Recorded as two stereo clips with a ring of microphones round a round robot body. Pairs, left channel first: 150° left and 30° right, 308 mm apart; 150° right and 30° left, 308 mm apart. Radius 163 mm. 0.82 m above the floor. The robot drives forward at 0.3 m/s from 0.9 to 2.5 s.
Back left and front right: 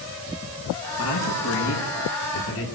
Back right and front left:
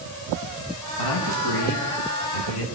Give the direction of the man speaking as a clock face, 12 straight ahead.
5 o'clock.